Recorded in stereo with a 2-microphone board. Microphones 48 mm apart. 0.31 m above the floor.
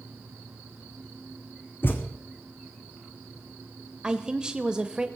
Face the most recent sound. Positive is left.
turn(degrees=-20)  # may be behind; listen again after turning